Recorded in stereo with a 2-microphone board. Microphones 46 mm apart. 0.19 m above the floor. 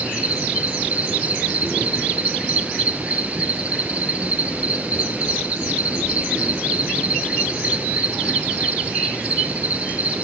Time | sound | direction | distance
0.0 | an insect | 30° right (ahead or behind) | 0.8 m